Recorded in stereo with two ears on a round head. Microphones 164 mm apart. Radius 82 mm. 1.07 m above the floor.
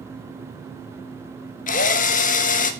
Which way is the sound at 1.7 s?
45° left (ahead or behind).